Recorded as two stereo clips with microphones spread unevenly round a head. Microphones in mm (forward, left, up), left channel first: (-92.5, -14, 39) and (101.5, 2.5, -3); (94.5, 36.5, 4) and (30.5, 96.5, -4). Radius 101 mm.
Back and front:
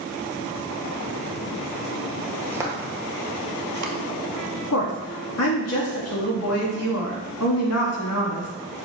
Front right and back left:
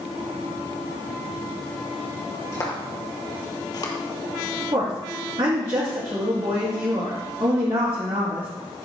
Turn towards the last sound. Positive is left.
turn(degrees=-170)